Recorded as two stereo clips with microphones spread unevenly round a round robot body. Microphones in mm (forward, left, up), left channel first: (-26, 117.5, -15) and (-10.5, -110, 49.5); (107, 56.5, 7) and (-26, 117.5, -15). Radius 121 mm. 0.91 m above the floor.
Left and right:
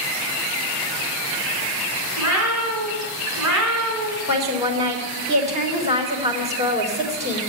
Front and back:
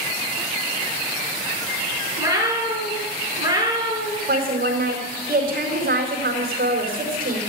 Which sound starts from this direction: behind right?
A woman speaking, at 4.3 s.